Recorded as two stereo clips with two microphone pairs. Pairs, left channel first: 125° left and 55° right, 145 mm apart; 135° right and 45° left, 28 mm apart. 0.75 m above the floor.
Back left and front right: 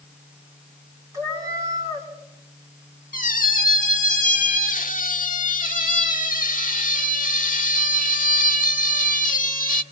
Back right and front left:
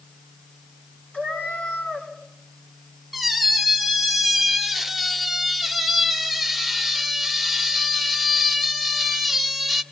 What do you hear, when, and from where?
1.1 s a cat meowing: 125° right, 4 m
3.1 s a squeak: 140° left, 1.4 m